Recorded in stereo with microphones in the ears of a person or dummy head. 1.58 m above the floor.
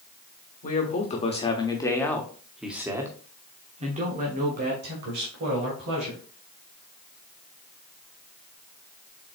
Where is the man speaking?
40° left (ahead or behind), 1.4 m; by 6.2 s 70° right (ahead or behind), 2 m.